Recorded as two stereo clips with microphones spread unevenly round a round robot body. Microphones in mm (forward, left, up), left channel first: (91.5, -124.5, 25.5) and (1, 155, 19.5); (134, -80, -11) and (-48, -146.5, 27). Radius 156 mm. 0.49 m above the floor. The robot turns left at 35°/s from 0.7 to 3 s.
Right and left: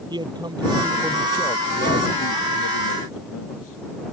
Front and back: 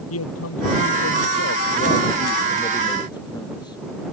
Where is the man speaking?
30° left; by 3.8 s 50° right.